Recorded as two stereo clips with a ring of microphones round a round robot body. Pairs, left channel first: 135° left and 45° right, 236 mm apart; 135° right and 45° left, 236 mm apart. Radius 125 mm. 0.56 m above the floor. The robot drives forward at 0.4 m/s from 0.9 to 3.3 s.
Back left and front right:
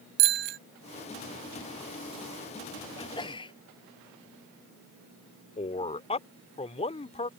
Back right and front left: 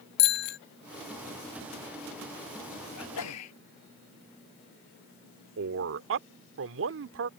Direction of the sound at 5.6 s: 70° left.